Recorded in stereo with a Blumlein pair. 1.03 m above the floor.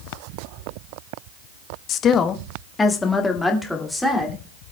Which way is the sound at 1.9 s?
30° left.